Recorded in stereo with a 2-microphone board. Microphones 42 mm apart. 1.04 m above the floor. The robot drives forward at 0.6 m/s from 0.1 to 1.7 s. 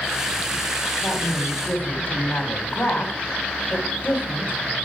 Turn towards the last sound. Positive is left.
turn(degrees=50)  # may be behind; listen again after turning